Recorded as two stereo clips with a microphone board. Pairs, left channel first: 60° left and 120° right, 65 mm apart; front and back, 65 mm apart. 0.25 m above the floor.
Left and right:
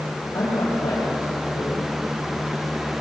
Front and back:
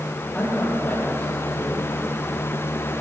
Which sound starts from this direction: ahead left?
A man speaking, at 0.3 s.